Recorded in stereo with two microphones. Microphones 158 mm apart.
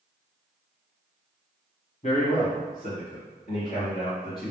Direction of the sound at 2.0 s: 55° left (ahead or behind).